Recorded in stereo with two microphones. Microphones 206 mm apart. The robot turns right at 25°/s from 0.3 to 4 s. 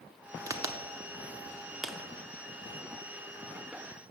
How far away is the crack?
About 0.6 m.